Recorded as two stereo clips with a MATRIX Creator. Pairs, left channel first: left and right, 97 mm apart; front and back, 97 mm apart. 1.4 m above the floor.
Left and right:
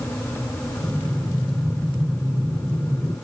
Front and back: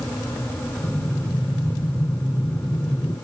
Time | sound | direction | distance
0.8 | breathing | 60° right | 2 m